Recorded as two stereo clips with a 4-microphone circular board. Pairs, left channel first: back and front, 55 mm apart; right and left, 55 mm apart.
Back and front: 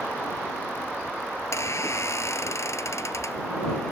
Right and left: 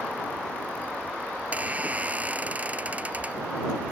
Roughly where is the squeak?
Behind left.